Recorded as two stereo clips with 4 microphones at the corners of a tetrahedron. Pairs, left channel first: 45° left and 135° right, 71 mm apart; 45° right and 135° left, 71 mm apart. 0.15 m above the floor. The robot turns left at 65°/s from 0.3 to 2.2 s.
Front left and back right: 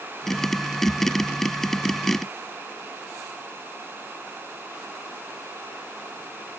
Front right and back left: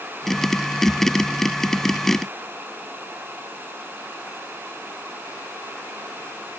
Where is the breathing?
No breathing in this recording.